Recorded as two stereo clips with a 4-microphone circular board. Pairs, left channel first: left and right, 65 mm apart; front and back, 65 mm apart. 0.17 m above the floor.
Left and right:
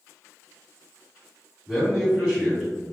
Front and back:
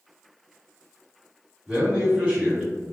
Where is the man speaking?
140° right, 1.6 m.